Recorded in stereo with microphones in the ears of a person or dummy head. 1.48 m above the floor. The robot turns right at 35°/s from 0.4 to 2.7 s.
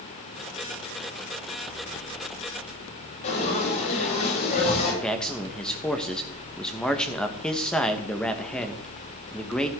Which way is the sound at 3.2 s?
40° left (ahead or behind).